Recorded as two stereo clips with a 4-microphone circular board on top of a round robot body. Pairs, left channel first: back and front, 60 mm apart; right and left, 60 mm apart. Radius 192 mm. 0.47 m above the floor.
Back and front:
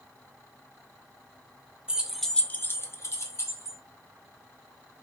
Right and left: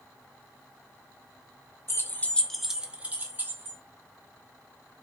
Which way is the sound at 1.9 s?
70° right.